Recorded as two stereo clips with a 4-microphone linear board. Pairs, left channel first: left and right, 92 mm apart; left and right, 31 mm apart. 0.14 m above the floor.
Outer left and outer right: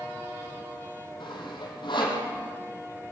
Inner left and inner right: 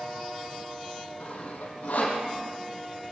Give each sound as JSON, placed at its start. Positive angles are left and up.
{"t": 1.2, "sound": "sawing", "side_deg": 60, "distance_m": 5.0}